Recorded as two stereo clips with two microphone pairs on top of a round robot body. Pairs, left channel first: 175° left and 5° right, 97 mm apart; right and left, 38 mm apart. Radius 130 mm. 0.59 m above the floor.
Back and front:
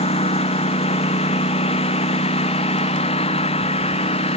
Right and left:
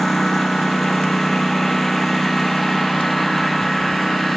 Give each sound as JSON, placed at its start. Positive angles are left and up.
{"t": 0.0, "sound": "a lawn mower", "azimuth_deg": -175}